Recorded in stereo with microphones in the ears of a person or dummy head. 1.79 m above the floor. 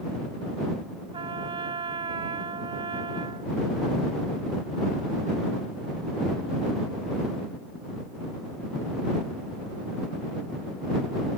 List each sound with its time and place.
1.1 s a trumpet: 30° right (ahead or behind)